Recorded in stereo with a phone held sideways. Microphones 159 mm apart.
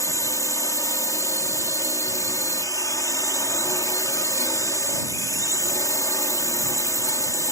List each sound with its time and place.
0.0 s a drone: 20° left (ahead or behind)